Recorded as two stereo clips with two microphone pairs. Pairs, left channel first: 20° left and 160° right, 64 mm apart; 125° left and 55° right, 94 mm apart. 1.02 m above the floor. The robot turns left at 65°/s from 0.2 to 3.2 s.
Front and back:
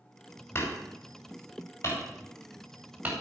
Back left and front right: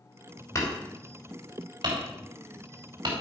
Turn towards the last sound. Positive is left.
turn(degrees=-105)